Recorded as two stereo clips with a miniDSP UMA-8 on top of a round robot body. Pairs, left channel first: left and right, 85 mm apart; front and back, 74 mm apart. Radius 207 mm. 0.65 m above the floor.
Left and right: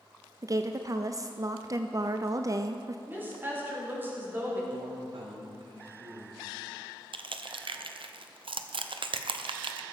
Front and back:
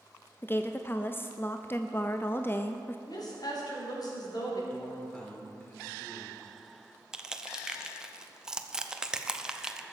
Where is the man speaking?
75° right, 3 m.